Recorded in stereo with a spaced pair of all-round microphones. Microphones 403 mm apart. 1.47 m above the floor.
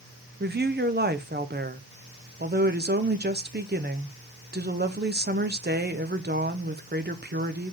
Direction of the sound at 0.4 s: 25° right (ahead or behind).